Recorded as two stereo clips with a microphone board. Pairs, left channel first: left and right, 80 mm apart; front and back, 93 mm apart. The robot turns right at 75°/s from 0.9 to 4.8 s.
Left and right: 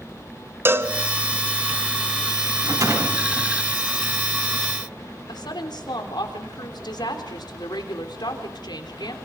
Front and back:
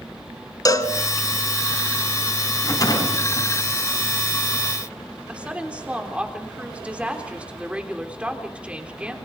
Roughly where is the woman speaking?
Left.